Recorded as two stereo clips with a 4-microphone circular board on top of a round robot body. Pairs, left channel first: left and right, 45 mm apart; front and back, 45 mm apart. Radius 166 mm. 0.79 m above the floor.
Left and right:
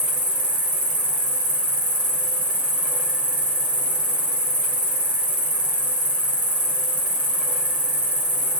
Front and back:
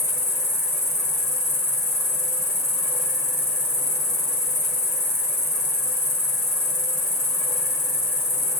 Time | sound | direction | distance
0.0 | an insect | 30° right | 1.0 m